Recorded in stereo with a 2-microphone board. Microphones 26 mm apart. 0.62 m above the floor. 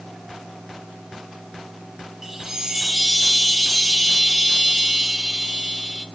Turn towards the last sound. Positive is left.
turn(degrees=-15)  # may be behind; listen again after turning